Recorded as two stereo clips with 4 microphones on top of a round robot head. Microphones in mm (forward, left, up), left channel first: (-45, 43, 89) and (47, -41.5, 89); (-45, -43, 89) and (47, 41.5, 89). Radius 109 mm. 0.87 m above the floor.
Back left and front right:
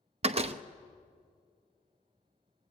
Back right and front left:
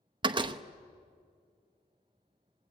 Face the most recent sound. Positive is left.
turn(degrees=-5)